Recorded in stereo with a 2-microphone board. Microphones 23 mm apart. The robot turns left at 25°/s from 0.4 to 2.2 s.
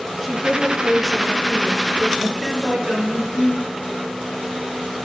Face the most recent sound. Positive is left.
turn(degrees=-40)  # may be behind; listen again after turning